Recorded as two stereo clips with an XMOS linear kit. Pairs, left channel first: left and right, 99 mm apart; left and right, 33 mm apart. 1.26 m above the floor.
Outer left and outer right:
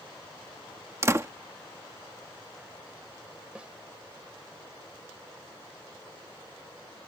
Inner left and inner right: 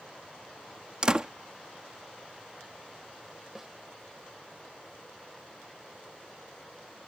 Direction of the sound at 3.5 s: 10° right (ahead or behind).